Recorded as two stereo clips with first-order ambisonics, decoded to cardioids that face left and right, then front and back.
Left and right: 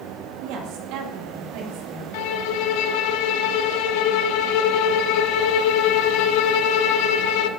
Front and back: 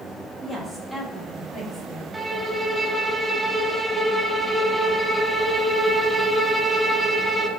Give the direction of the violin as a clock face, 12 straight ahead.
9 o'clock.